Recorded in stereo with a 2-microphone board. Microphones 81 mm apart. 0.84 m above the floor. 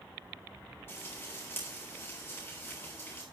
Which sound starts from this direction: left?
Frying, at 0.9 s.